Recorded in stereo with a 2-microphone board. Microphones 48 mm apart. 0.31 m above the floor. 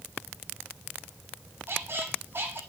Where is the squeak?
50° right (ahead or behind), 1.7 m.